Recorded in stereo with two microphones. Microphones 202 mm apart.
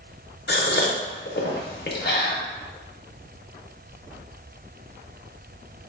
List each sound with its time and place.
0.5 s a gasp: 55° left (ahead or behind), 0.5 m